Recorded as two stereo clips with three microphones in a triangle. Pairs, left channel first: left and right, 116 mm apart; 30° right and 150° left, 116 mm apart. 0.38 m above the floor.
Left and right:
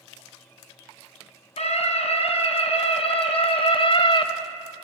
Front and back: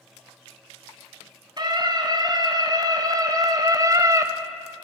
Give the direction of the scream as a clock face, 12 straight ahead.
9 o'clock.